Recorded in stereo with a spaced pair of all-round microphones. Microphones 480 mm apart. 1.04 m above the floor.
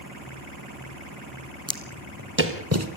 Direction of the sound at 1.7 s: 10° right (ahead or behind).